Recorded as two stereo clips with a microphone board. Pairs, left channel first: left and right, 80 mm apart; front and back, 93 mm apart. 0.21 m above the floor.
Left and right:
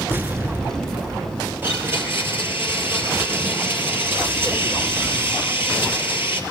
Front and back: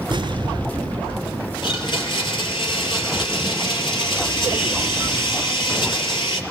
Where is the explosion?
150° right, 1.0 m.